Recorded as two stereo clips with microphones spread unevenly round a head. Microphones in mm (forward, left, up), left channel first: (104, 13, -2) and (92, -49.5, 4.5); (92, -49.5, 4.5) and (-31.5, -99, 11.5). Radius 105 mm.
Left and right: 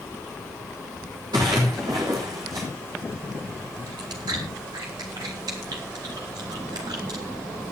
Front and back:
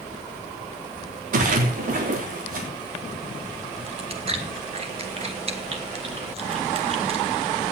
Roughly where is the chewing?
Behind right.